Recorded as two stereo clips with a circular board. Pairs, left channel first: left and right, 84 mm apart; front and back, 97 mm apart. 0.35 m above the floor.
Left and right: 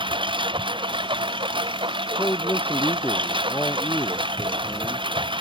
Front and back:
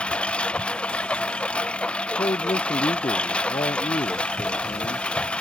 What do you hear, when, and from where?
0.0 s a lawn mower: 80° right
2.2 s a man speaking: 25° left